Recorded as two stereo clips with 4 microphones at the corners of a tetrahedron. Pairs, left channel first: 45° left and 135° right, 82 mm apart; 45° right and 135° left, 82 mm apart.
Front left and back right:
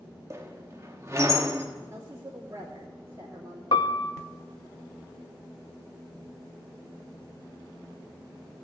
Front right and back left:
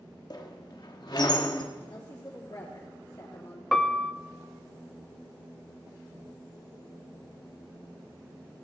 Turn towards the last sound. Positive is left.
turn(degrees=40)